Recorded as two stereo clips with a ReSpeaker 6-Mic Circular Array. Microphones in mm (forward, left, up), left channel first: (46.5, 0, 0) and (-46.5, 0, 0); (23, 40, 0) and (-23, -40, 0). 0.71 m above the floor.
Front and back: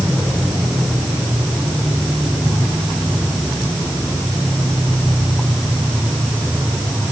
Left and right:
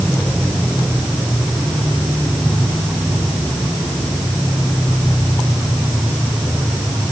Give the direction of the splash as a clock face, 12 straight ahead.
No splash in this recording.